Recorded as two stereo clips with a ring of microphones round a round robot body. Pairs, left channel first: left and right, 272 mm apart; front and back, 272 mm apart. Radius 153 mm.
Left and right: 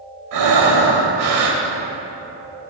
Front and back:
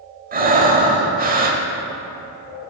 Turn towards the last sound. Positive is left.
turn(degrees=-120)